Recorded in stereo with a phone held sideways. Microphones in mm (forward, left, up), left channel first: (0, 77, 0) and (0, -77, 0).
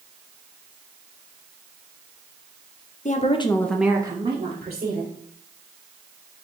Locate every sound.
3.0 s a woman speaking: 55° left (ahead or behind), 0.6 m; by 5.1 s 55° right (ahead or behind), 1.3 m